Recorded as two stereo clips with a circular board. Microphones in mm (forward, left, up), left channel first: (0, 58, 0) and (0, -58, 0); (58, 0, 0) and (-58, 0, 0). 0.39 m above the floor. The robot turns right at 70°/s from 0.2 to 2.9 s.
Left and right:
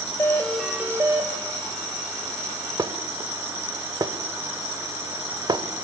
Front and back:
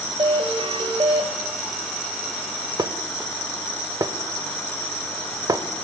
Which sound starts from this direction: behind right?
Dishes clattering, at 2.8 s.